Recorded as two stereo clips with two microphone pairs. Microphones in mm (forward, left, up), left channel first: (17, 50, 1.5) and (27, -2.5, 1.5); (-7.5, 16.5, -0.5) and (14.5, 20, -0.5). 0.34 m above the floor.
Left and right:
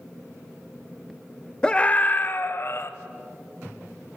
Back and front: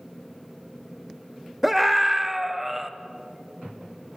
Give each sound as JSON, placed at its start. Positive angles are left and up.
{"t": 1.6, "sound": "a scream", "azimuth_deg": 80, "distance_m": 1.0}